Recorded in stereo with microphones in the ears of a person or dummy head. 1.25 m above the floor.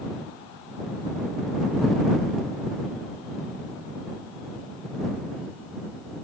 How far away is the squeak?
No squeak in this recording.